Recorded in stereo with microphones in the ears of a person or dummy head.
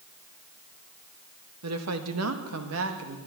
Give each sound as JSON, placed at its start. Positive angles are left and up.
{"t": 1.6, "sound": "a woman speaking", "side_deg": -75, "distance_m": 1.5}